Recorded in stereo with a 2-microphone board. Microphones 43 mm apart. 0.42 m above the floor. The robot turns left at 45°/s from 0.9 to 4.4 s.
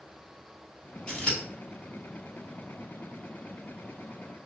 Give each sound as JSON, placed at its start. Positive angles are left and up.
{"t": 1.1, "sound": "scissors", "side_deg": 25, "distance_m": 1.7}